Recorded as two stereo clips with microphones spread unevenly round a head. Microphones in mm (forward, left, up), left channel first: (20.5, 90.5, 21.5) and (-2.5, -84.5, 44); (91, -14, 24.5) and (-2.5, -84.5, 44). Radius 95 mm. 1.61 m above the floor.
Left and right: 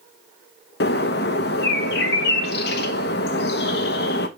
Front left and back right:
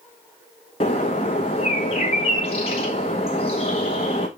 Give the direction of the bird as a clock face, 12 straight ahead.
9 o'clock.